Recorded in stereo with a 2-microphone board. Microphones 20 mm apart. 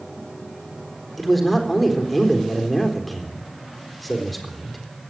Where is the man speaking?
10° left (ahead or behind), 4 m.